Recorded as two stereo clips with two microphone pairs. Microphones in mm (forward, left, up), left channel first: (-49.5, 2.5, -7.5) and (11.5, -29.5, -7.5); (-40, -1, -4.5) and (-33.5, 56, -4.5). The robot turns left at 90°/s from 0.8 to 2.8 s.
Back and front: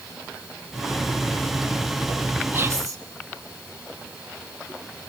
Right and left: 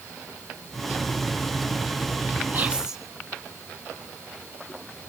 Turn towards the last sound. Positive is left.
turn(degrees=10)